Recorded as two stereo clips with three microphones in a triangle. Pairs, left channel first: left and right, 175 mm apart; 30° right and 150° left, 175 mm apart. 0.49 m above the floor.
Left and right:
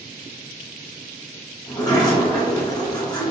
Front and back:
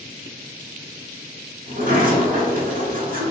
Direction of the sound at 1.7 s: 150° left.